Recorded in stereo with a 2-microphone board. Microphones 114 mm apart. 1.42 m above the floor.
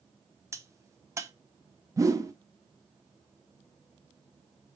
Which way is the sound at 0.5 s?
25° right (ahead or behind).